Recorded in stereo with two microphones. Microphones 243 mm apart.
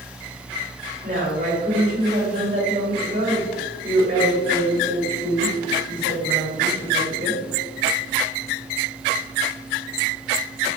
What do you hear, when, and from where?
1.0 s a woman speaking: 35° right (ahead or behind), 1.6 m